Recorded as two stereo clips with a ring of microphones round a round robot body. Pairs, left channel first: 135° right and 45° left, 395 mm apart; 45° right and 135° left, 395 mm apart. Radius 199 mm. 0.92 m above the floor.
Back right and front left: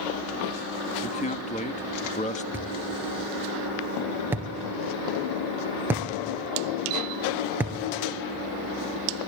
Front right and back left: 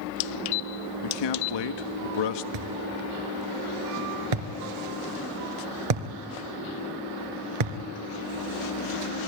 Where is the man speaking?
65° right, 1.4 m.